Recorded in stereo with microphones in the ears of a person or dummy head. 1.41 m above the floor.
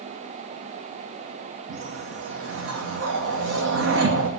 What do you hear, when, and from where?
1.7 s a whoosh: 75° right (ahead or behind), 2 m